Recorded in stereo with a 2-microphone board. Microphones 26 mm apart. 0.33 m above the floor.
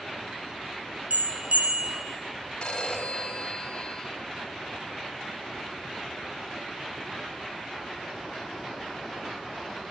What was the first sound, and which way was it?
A bell, 65° right (ahead or behind).